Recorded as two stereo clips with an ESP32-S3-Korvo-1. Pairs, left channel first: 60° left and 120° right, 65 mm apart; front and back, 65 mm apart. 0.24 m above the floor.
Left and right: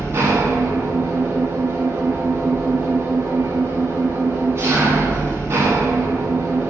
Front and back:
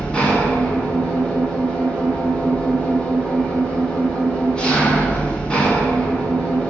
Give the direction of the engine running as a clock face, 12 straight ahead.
3 o'clock.